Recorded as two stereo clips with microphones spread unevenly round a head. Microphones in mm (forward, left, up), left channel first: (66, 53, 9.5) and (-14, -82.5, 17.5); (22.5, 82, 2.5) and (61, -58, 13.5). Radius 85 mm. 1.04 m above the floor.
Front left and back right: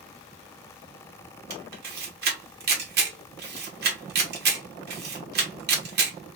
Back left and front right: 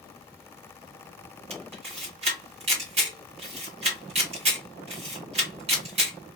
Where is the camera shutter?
130° right, 1.5 m.